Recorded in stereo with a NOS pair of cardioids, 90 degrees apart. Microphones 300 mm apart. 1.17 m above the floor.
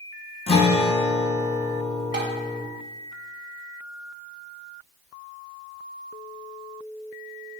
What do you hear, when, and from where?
0.5 s a guitar: 20° left, 1.5 m
2.1 s tapping: 40° right, 1.6 m